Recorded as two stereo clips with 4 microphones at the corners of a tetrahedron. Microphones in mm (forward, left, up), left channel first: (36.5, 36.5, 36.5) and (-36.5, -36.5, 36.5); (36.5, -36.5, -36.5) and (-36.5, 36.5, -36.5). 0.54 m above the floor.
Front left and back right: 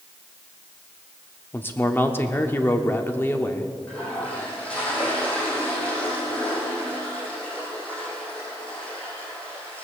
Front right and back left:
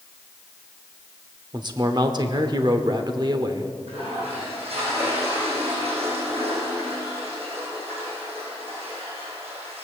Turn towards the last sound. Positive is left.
turn(degrees=125)